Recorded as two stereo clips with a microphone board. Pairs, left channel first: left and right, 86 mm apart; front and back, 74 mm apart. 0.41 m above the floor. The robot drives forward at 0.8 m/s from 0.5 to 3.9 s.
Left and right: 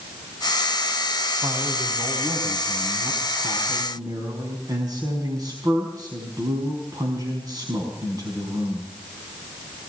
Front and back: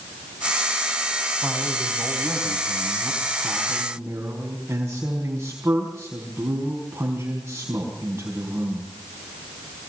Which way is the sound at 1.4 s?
100° right.